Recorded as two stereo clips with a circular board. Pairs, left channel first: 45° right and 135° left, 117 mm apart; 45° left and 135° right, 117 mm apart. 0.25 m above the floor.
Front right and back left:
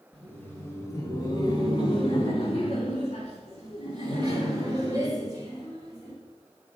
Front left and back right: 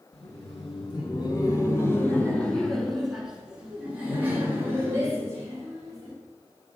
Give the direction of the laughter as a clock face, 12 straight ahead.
11 o'clock.